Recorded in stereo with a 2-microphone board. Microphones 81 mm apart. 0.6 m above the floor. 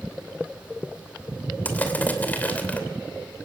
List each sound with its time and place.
1.6 s crushing: 20° left (ahead or behind), 2.5 m